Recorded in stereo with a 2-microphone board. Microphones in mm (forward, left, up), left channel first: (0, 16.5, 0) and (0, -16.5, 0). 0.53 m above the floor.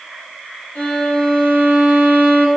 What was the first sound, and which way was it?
A violin, 50° left (ahead or behind).